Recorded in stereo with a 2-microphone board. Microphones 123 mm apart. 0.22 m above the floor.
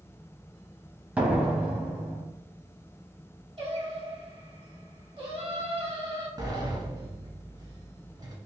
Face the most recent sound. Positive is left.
turn(degrees=-30)  # may be behind; listen again after turning